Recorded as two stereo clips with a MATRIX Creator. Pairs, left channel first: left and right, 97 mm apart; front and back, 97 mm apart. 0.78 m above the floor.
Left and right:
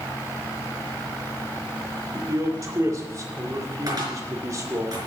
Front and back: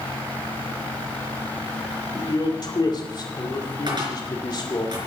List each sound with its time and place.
2.1 s a man speaking: 40° right, 2 m
3.9 s a cupboard door: 140° right, 4 m